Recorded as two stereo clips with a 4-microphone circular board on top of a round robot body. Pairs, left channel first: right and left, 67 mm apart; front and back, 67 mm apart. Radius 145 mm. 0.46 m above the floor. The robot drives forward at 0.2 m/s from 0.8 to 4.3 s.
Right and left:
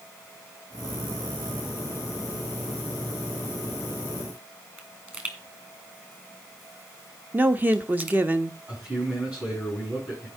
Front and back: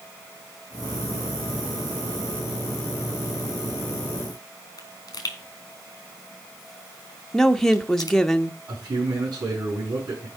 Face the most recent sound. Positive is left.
turn(degrees=165)